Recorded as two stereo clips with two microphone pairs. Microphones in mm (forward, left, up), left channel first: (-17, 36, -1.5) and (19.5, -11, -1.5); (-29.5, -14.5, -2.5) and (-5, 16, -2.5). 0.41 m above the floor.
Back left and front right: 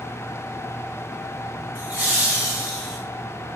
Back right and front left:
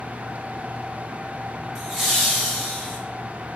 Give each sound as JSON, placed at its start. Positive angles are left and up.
{"t": 1.8, "sound": "laughter", "azimuth_deg": -25, "distance_m": 1.4}